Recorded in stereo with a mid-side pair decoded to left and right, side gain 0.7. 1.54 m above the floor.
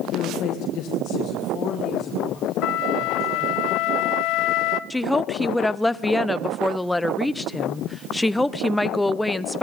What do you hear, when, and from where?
0.1 s a woman speaking: 60° left, 1.4 m; by 3.6 s 35° left, 3.5 m
2.6 s a flute: 60° left, 0.7 m
4.9 s a woman speaking: 10° left, 0.6 m